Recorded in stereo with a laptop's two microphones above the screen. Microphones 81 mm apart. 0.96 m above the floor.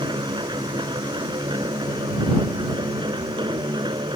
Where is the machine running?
80° right.